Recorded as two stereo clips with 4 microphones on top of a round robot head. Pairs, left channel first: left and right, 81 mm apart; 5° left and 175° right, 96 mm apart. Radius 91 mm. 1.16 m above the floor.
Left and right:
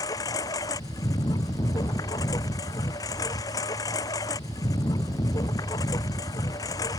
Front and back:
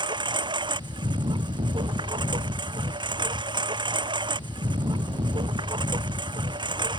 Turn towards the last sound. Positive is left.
turn(degrees=145)